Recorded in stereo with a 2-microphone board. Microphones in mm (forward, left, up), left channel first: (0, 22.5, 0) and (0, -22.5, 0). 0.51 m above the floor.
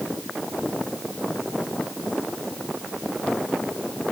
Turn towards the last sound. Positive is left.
No sound to turn to.